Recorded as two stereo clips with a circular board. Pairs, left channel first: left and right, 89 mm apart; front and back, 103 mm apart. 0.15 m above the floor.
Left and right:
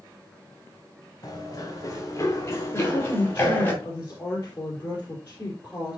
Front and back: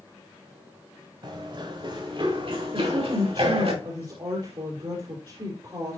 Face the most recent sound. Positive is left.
turn(degrees=145)